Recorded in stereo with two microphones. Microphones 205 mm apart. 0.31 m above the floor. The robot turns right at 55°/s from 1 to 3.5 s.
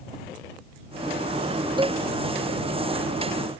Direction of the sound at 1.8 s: 25° right (ahead or behind).